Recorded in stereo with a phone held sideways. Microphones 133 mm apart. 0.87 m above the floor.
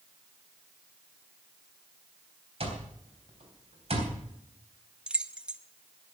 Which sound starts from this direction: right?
An alarm clock, at 2.6 s.